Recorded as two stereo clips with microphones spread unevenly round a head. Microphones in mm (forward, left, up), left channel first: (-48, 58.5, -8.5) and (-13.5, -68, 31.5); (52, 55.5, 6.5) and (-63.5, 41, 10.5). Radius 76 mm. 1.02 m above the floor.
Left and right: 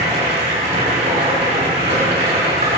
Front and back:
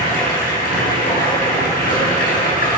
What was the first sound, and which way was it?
Running water, 25° right.